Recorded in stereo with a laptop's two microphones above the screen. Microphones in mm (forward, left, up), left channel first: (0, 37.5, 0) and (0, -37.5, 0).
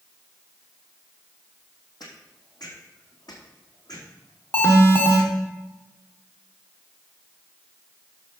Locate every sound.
2.0 s footsteps: 65° left (ahead or behind), 3 m; by 5.3 s 60° left (ahead or behind), 5 m
4.5 s an alarm: 35° left (ahead or behind), 1.5 m